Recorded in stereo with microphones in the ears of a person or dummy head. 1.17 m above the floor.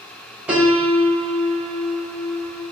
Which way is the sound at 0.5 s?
10° right (ahead or behind).